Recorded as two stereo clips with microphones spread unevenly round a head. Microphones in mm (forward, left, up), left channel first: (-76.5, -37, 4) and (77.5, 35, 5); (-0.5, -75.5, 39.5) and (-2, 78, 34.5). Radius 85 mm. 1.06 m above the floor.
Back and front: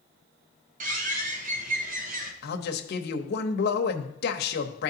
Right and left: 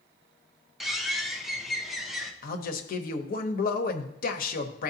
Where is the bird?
5° left, 0.8 m.